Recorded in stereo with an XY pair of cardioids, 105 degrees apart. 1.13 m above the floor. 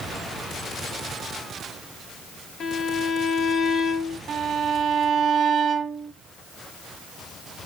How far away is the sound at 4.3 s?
About 2.5 m.